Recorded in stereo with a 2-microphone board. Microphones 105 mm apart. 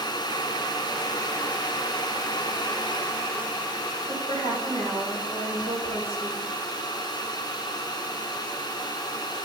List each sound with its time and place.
4.1 s a woman speaking: 75° right (ahead or behind), 3.5 m